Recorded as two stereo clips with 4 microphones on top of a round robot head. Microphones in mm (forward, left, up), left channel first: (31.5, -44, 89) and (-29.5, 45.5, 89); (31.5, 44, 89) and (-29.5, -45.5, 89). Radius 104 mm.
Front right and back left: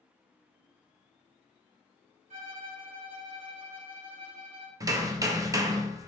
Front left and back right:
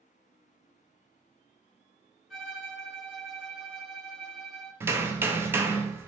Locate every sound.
2.3 s a violin: 145° left, 1.2 m
4.8 s hammering: 175° left, 0.5 m